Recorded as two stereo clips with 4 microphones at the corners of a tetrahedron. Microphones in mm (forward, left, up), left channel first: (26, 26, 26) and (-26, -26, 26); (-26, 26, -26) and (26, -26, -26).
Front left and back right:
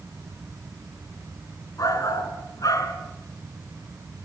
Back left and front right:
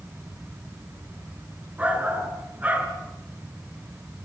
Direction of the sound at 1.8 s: 20° left.